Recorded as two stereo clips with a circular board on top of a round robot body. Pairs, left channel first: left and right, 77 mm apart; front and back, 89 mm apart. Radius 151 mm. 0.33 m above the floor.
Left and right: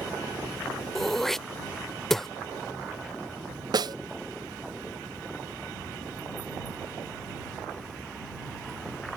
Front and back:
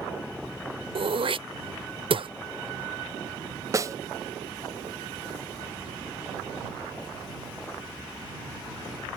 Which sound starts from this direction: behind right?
A snare drum, at 3.7 s.